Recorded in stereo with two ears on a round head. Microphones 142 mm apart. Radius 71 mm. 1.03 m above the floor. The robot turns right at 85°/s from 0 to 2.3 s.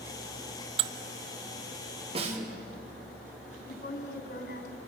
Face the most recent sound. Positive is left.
turn(degrees=70)  # may be behind; listen again after turning